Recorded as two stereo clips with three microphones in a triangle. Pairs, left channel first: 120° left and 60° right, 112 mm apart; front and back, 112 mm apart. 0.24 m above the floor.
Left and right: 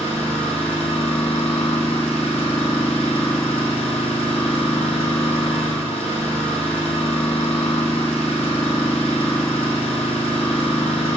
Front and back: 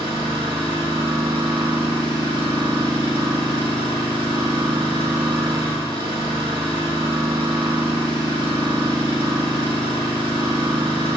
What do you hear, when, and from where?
0.0 s an engine running: 135° left, 3.5 m